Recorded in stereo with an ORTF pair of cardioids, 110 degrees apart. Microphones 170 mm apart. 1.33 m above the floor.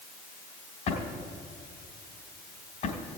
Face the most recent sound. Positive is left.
turn(degrees=50)